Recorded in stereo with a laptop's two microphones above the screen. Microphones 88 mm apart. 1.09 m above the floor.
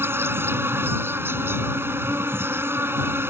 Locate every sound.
0.0 s an insect: 25° right (ahead or behind)